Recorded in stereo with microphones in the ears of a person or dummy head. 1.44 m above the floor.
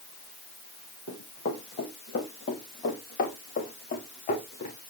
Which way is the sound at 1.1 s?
65° left (ahead or behind).